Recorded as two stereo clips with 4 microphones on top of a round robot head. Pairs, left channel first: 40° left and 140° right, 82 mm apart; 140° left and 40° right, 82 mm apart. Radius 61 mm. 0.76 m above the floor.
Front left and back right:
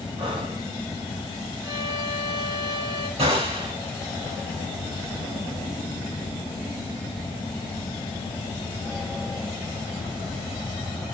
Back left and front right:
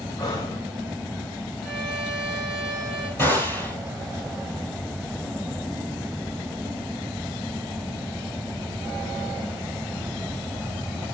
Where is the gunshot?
150° right, 6.5 m.